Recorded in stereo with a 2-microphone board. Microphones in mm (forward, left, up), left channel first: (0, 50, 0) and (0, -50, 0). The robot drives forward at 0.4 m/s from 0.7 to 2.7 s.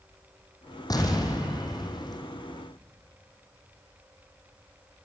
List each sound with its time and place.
0.9 s an explosion: 40° left (ahead or behind), 4.5 m; by 2.2 s 45° left (ahead or behind), 4.5 m